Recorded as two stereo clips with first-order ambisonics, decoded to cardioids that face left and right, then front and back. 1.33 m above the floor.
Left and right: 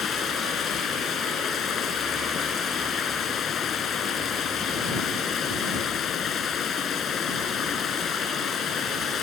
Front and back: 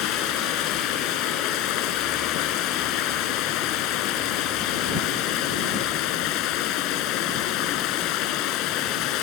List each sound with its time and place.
0.0 s running water: 30° left